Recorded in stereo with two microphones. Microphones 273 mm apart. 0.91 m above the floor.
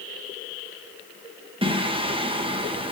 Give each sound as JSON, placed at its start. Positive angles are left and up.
{"t": 1.6, "sound": "singing", "side_deg": -20, "distance_m": 0.7}